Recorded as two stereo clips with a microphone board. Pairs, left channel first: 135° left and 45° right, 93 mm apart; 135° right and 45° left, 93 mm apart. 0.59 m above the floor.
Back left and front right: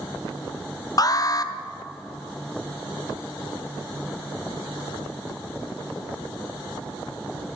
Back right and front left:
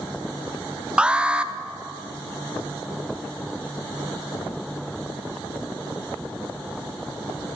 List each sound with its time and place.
1.0 s an alarm: 120° left, 0.5 m